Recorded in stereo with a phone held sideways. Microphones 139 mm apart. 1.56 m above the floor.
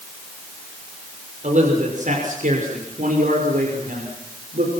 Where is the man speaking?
60° right (ahead or behind), 6.5 m; by 4.7 s 85° right, 6.5 m.